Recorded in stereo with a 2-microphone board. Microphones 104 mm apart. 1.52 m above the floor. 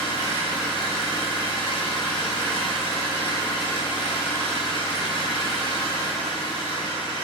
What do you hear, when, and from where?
0.0 s an engine running: 50° left (ahead or behind), 3.5 m